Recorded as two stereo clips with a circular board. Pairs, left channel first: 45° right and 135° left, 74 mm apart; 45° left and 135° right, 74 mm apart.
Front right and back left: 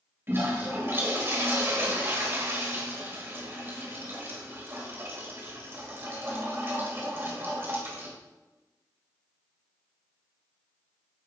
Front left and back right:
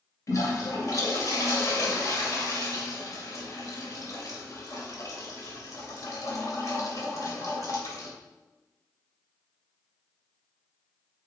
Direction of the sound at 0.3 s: 80° left.